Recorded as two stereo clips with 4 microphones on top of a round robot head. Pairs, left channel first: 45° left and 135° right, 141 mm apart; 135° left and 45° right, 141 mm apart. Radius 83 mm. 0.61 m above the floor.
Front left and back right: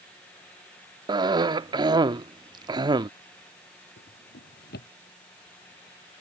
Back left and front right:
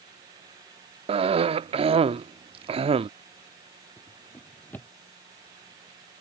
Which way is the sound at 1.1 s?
80° right.